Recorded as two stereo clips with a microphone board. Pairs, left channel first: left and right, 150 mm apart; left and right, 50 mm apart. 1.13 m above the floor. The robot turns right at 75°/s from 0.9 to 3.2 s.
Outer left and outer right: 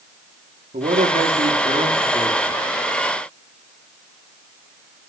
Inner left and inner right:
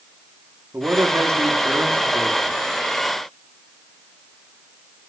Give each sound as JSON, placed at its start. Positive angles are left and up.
{"t": 0.7, "sound": "a man speaking", "azimuth_deg": -120, "distance_m": 3.0}